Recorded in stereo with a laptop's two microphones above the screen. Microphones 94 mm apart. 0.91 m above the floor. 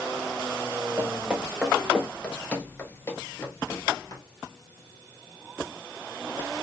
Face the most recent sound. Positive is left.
turn(degrees=35)  # may be behind; listen again after turning